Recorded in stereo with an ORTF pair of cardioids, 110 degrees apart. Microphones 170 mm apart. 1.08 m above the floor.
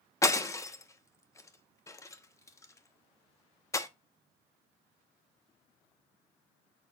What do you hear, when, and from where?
0.2 s breaking glass: 20° left, 1.0 m